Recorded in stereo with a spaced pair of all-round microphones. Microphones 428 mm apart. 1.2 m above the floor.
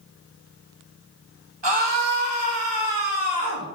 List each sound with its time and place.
1.6 s a scream: 80° right, 1.8 m